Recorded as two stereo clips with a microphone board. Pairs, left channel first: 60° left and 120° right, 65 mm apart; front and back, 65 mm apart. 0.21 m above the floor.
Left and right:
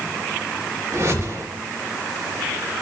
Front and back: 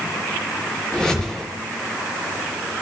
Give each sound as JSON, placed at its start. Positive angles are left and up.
{"t": 0.9, "sound": "a whoosh", "azimuth_deg": -80, "distance_m": 4.0}